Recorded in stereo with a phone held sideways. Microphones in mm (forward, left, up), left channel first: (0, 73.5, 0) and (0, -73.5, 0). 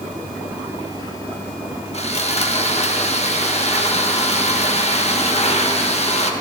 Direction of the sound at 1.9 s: 45° left (ahead or behind).